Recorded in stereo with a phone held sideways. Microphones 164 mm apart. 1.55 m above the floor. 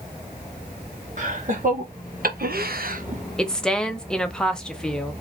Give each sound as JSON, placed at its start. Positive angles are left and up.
{"t": 1.2, "sound": "laughter", "side_deg": -55, "distance_m": 2.0}
{"t": 3.4, "sound": "a woman speaking", "side_deg": 5, "distance_m": 0.9}